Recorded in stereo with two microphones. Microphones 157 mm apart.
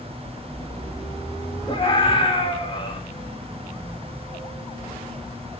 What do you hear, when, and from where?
1.7 s a scream: 35° left (ahead or behind), 4.5 m